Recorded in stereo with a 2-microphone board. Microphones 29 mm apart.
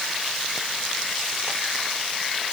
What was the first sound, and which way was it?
Only background noise.